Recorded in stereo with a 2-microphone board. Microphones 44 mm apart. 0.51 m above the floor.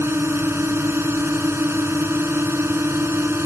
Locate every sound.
0.0 s a drone: 75° right (ahead or behind)